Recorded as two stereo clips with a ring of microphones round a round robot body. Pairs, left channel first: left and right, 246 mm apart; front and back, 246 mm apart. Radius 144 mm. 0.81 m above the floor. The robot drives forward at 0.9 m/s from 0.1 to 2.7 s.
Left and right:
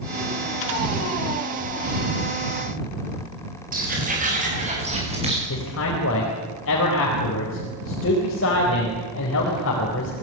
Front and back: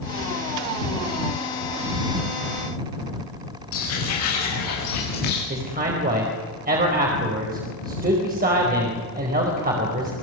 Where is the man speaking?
130° left, 4.5 m.